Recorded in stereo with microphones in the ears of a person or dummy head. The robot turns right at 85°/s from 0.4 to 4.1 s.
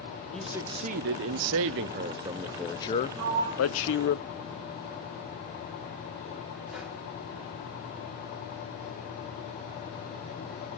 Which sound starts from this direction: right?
A sliding door, at 3.2 s.